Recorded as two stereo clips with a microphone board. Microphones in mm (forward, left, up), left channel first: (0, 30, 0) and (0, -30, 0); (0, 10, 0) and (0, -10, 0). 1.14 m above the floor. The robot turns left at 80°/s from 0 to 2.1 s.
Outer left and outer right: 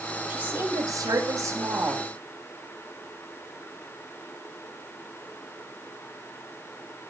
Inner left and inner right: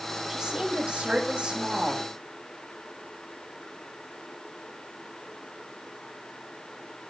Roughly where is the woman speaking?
Ahead.